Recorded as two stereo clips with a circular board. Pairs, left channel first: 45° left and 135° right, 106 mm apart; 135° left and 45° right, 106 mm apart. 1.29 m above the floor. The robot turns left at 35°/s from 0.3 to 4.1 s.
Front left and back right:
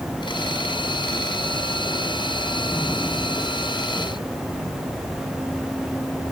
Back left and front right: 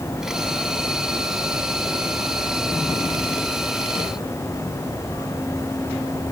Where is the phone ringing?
No phone ringing in this recording.